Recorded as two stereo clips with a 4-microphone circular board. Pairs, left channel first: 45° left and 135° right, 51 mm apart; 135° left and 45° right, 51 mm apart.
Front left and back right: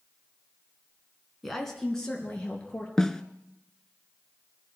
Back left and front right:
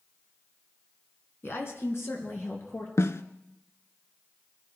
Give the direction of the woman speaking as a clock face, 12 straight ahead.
8 o'clock.